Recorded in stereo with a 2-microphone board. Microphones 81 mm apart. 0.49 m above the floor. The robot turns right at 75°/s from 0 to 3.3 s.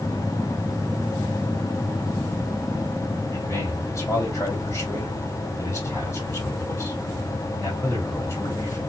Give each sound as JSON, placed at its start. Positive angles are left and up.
{"t": 3.3, "sound": "a man speaking", "side_deg": 35, "distance_m": 2.0}